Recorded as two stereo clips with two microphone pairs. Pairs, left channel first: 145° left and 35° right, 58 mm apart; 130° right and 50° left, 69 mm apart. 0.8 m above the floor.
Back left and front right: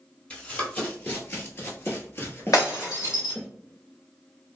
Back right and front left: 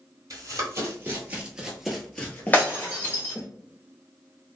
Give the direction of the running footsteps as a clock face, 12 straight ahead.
9 o'clock.